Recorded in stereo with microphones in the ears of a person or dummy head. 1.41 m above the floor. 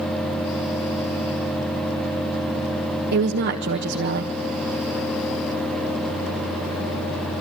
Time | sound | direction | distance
3.1 | a woman speaking | 55° right (ahead or behind) | 1.4 m